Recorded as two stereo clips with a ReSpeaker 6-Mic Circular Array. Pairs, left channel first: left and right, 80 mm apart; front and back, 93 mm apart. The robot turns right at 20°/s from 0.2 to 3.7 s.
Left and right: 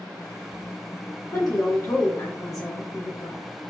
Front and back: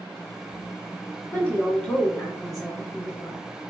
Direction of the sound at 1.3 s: 65° left.